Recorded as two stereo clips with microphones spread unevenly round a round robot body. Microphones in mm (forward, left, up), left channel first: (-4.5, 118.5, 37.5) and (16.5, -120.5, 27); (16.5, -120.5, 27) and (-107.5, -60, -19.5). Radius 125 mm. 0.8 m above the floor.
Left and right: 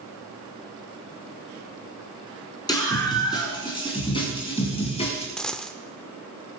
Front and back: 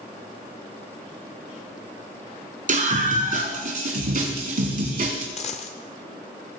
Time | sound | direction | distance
2.7 | a scream | 170° left | 7.5 m
5.4 | a dropped coin | 10° left | 0.7 m